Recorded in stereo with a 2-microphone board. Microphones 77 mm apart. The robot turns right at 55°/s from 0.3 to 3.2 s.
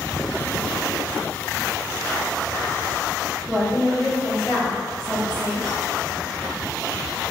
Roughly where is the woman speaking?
Centre.